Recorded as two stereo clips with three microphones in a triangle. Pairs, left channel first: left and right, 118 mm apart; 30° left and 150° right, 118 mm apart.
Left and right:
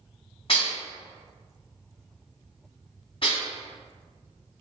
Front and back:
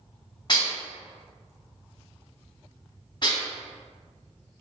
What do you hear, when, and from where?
0.5 s dishes clattering: 70° left, 1.4 m